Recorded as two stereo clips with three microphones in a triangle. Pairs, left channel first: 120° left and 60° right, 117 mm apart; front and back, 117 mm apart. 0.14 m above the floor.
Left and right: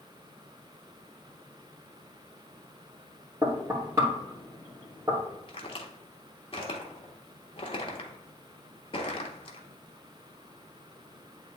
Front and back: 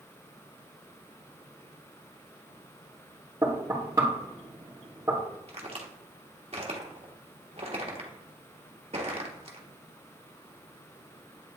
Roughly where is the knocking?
Behind right.